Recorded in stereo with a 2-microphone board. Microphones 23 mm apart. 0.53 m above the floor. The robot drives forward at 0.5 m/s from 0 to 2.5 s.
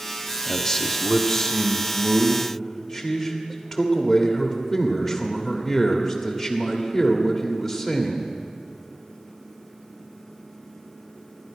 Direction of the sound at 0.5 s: 25° left (ahead or behind).